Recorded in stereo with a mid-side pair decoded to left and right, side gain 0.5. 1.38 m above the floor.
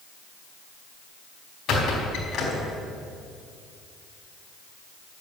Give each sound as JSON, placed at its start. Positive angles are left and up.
{"t": 1.7, "sound": "a squeak", "azimuth_deg": 55, "distance_m": 4.0}